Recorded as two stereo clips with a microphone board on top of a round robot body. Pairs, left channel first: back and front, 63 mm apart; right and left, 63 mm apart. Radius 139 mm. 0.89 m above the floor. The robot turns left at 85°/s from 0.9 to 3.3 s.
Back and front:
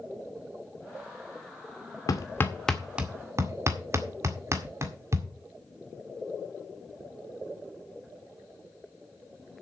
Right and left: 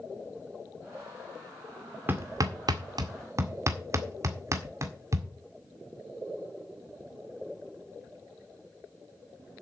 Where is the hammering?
150° left, 2.0 m; by 5.3 s 50° left, 2.0 m.